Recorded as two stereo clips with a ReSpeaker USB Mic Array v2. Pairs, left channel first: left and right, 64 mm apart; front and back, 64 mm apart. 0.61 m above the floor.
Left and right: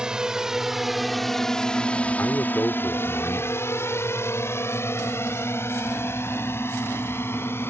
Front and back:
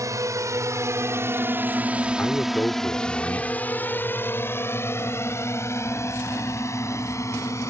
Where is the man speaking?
50° left.